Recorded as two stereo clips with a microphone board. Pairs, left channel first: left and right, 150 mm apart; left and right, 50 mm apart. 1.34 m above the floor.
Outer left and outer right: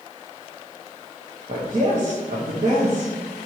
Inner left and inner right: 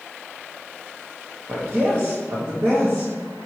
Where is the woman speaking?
55° right (ahead or behind), 1.8 m.